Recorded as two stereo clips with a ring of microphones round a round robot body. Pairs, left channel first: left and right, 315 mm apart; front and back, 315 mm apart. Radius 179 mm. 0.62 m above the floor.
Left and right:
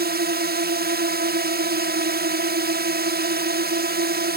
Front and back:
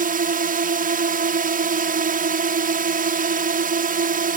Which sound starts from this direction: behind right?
A drone, at 0.0 s.